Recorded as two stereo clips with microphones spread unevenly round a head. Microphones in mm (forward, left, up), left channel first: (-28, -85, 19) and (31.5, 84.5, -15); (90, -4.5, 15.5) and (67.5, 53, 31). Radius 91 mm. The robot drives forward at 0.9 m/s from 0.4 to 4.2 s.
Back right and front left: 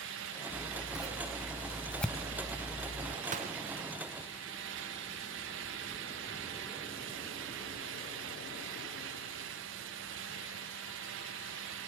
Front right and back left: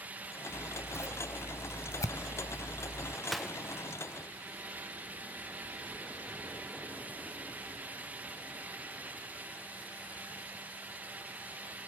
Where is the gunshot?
20° left, 1.4 m; by 3.5 s 25° left, 1.1 m.